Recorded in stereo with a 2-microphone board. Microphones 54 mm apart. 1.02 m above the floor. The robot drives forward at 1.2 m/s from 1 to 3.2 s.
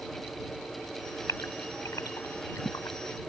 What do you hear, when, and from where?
1.3 s a gasp: 85° left; by 3.0 s 75° left (ahead or behind)